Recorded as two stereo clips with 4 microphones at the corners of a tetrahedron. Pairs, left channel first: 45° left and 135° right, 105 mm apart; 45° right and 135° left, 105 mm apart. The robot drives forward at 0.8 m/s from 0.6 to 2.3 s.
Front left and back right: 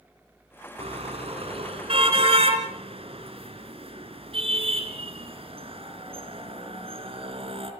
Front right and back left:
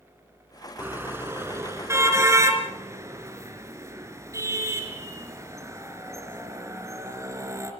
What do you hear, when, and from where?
0.8 s a car horn: 155° right, 2.5 m; by 7.7 s 165° right, 3.5 m